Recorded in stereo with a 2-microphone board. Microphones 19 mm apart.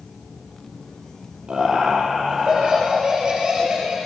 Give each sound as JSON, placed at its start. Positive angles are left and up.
{"t": 1.5, "sound": "laughter", "side_deg": -65, "distance_m": 7.0}